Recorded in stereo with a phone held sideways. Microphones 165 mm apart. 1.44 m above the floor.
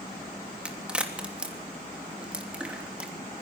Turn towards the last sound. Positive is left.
turn(degrees=-5)  # may be behind; listen again after turning